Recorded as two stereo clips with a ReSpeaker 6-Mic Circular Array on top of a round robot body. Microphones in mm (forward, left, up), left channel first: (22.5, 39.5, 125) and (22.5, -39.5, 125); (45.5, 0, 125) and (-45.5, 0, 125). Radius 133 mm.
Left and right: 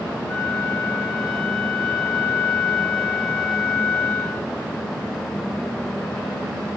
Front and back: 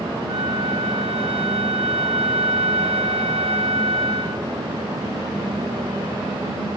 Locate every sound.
0.3 s a flute: 175° left, 4 m